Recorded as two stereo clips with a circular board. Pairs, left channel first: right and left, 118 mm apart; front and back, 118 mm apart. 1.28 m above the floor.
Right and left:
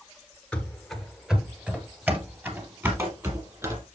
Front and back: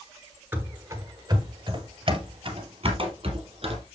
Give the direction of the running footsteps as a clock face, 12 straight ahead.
5 o'clock.